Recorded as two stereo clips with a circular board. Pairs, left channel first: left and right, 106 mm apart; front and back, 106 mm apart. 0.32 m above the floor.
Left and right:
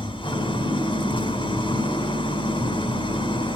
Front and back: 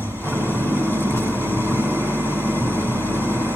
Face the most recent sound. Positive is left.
turn(degrees=65)